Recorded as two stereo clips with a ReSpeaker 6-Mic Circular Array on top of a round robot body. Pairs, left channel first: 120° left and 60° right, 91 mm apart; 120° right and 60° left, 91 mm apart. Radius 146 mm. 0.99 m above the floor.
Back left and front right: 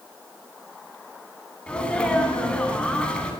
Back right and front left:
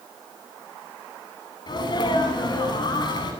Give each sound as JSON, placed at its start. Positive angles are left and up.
{"t": 1.7, "sound": "a sneeze", "azimuth_deg": -160, "distance_m": 8.5}